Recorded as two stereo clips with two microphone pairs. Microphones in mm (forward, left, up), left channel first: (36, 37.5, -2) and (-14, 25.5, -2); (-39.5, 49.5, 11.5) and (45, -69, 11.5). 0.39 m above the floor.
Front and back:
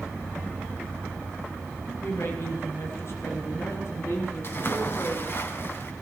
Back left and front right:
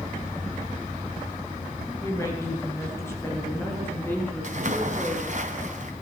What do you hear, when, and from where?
2.0 s a woman speaking: 55° left, 7.5 m; by 5.3 s 45° left, 8.5 m
4.4 s a splash: 25° right, 3.5 m